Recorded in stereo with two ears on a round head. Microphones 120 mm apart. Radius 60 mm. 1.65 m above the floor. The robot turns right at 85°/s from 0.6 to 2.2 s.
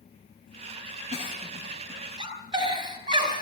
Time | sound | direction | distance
1.1 | a giggle | 50° left (ahead or behind) | 4.5 m